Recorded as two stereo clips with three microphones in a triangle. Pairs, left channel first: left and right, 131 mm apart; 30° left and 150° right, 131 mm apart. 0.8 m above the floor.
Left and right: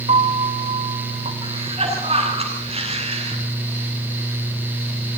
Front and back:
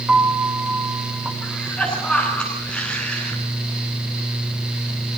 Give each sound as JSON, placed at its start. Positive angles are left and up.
{"t": 0.1, "sound": "a piano", "azimuth_deg": -70, "distance_m": 2.5}
{"t": 1.4, "sound": "a cough", "azimuth_deg": -50, "distance_m": 9.5}